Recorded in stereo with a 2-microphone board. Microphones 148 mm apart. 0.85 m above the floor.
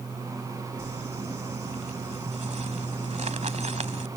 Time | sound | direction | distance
0.8 | crumpling | 50° right (ahead or behind) | ?